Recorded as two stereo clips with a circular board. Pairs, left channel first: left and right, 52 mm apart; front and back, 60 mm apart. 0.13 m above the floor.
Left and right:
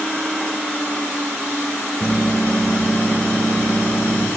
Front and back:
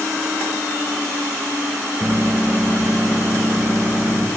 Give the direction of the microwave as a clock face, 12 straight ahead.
7 o'clock.